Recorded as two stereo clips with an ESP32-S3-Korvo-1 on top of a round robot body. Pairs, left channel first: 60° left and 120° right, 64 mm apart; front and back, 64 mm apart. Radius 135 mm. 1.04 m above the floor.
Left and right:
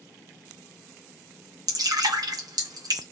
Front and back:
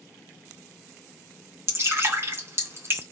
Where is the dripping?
130° right, 1.7 m.